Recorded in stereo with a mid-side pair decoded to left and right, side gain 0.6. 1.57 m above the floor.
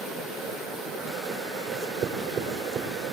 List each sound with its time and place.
1.7 s writing: 55° right, 4.5 m